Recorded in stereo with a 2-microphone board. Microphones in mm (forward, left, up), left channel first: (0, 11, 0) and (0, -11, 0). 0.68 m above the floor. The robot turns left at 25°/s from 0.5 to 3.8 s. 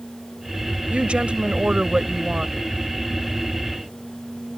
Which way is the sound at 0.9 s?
95° right.